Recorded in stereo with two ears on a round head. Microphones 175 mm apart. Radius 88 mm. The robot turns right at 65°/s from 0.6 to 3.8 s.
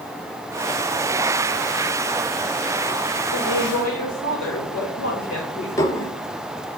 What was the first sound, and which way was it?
A woman speaking, 95° left.